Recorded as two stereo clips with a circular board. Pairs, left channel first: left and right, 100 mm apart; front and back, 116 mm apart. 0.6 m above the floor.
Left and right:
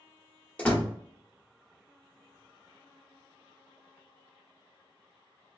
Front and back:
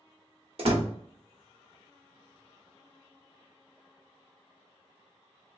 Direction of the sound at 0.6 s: 165° left.